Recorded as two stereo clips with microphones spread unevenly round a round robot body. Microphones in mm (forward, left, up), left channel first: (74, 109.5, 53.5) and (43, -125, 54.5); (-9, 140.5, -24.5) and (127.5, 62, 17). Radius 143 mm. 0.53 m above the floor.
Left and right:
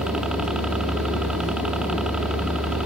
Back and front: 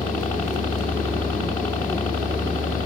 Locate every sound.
0.0 s a helicopter: straight behind